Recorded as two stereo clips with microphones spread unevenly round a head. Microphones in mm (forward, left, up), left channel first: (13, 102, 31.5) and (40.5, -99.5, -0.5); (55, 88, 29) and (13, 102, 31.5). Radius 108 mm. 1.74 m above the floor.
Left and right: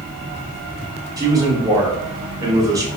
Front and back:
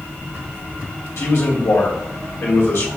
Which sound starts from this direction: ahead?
A man speaking, at 1.2 s.